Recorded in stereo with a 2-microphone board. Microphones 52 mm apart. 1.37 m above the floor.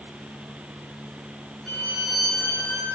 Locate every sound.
1.7 s a violin: 5° left (ahead or behind), 10 m